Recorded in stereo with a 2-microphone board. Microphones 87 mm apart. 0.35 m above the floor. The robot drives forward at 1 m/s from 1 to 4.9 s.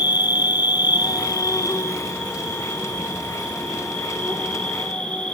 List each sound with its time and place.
0.0 s an insect: 55° left (ahead or behind), 1.1 m; by 5.3 s 10° left (ahead or behind), 4.5 m